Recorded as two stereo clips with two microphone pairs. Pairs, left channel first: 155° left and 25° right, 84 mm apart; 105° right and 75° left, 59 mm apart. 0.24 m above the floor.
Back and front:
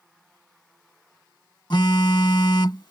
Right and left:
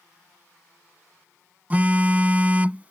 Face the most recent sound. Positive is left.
turn(degrees=135)